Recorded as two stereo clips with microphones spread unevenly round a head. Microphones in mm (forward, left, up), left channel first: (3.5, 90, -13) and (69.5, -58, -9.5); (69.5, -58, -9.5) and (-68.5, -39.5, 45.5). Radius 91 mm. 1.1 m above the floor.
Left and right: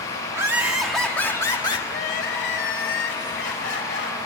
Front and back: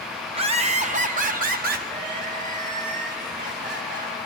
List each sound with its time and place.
0.3 s laughter: 140° right, 1.8 m; by 1.8 s straight behind, 1.8 m
1.9 s crying: 140° left, 2 m